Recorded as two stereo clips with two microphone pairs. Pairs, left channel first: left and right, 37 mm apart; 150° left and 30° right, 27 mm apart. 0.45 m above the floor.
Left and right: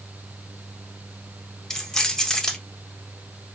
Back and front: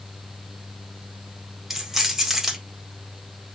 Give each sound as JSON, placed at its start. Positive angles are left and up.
{"t": 1.7, "sound": "keys jangling", "azimuth_deg": 35, "distance_m": 0.8}